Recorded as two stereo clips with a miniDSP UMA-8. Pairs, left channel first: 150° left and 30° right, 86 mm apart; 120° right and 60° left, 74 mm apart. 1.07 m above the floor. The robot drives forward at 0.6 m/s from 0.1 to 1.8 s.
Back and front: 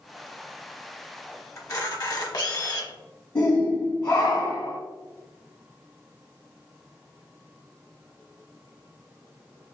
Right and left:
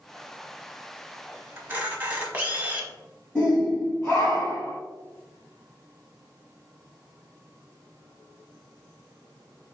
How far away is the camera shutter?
About 0.8 m.